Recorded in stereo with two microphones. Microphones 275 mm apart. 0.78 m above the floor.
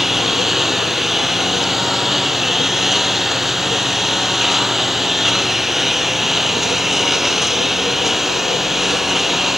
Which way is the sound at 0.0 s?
Centre (ahead or behind).